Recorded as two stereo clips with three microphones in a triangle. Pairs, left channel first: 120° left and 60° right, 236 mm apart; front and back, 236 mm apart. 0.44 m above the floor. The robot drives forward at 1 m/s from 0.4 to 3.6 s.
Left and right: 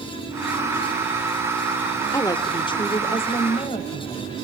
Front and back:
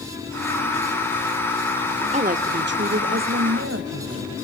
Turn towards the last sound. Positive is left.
turn(degrees=180)